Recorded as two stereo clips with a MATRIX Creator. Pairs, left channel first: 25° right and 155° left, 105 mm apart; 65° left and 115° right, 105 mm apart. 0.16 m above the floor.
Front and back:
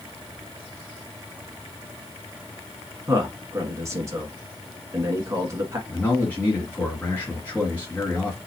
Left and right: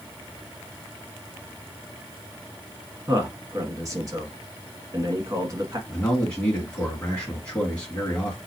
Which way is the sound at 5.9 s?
10° left.